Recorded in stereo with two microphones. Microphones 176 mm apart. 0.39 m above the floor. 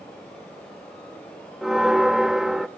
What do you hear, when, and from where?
1.6 s a bell: centre (ahead or behind), 0.5 m